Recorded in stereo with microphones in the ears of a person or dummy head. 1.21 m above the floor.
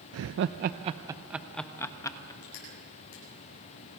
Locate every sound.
0.1 s laughter: 80° right, 0.7 m; by 2.3 s 15° left (ahead or behind), 1.3 m
2.4 s crushing: 70° left (ahead or behind), 9 m